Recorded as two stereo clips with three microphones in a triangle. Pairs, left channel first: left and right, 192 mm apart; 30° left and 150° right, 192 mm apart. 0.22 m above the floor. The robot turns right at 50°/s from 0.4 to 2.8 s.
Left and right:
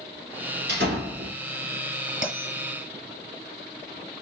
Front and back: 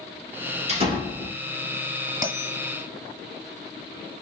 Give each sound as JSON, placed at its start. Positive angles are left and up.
{"t": 0.7, "sound": "a door slam", "azimuth_deg": -100, "distance_m": 2.5}
{"t": 2.2, "sound": "a bell", "azimuth_deg": 140, "distance_m": 1.6}